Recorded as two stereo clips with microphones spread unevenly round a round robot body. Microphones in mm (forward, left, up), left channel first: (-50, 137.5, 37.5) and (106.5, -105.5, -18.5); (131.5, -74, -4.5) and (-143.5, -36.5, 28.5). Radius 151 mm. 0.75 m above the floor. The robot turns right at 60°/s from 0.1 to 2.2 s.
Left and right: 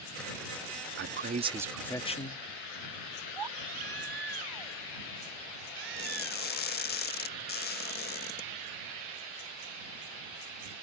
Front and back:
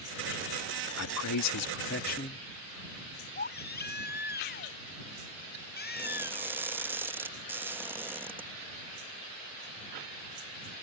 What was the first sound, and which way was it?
A man speaking, 20° right.